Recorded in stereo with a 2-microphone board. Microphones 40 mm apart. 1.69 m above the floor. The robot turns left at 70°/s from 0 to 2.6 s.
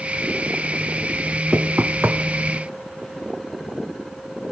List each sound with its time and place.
1.5 s knocking: 45° right (ahead or behind), 1.0 m; by 2.2 s 70° right (ahead or behind), 1.0 m